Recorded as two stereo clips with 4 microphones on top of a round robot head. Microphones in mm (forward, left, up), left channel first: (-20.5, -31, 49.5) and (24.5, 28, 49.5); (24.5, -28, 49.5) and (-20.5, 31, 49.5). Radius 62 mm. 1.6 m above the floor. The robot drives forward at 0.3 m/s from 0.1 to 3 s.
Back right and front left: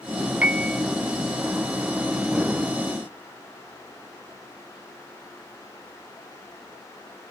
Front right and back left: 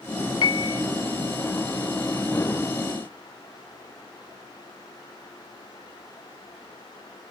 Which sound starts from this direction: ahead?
A piano, at 0.4 s.